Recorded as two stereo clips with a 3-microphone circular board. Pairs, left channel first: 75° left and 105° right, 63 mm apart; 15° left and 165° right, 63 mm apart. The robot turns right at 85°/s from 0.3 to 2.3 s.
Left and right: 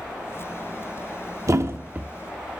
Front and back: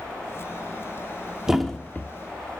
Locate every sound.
1.5 s a thud: 85° right, 0.7 m; by 2.1 s 35° right, 0.7 m